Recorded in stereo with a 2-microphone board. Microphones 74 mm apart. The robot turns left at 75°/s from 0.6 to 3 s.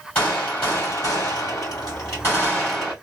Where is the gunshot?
160° left, 2.5 m; by 2.9 s 15° right, 2.5 m.